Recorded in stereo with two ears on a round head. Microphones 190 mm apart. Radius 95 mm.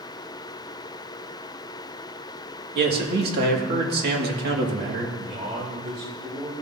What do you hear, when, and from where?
2.8 s a man speaking: 50° right (ahead or behind), 1.8 m
5.2 s a man speaking: 25° right (ahead or behind), 2.5 m